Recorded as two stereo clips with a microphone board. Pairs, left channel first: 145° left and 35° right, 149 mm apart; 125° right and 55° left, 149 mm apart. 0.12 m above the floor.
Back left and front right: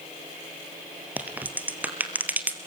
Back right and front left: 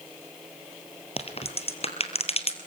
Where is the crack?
110° right, 1.8 m.